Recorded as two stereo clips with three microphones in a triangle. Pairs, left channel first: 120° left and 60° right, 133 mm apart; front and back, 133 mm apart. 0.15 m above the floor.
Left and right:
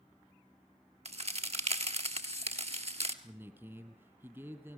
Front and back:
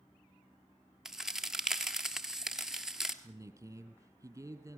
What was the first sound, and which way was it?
A crack, 95° right.